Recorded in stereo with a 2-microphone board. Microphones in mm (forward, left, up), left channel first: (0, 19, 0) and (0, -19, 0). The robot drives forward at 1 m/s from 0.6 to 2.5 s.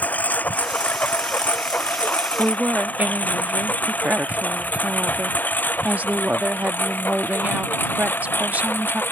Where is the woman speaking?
45° right (ahead or behind).